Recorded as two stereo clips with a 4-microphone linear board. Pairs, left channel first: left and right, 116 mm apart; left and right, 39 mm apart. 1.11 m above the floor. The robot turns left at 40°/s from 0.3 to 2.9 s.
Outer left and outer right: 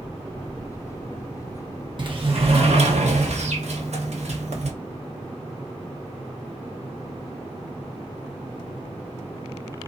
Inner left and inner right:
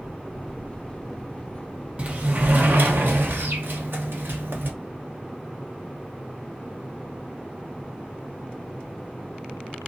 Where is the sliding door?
45° right, 0.8 m; by 4.7 s 80° right, 0.8 m.